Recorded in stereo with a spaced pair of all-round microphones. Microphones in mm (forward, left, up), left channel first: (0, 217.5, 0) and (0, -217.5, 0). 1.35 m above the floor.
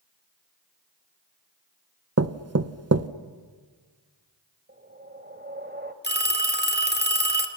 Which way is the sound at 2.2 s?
35° right (ahead or behind).